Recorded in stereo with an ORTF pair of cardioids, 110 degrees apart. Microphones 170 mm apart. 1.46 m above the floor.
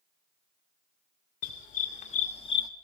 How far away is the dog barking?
About 2.5 m.